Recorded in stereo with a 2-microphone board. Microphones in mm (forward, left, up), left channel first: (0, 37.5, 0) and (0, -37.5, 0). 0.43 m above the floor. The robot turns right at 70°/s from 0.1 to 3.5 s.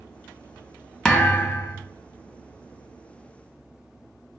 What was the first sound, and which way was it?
A thud, 10° left.